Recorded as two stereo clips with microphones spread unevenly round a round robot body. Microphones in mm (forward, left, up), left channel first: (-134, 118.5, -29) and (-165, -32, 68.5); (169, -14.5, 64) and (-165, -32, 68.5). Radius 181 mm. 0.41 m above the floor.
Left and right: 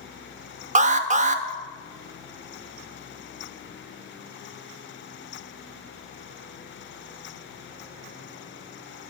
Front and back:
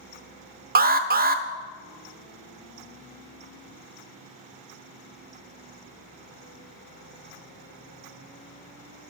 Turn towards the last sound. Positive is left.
turn(degrees=-175)